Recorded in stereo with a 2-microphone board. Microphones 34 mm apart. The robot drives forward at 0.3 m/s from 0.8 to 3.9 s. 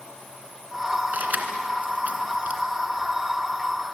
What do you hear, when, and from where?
1.1 s keys jangling: 55° right (ahead or behind), 2.5 m; by 2.6 s 50° right (ahead or behind), 2.5 m